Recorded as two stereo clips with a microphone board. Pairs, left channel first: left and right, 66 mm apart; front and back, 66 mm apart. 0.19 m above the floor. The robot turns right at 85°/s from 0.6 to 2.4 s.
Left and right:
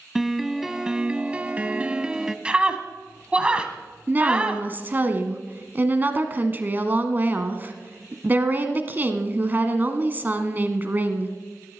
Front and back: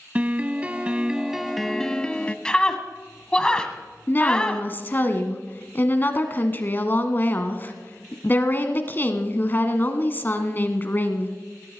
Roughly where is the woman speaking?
Ahead right.